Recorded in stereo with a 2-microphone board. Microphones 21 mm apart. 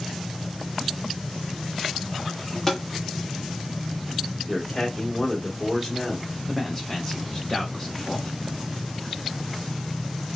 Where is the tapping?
20° left (ahead or behind), 1.1 m.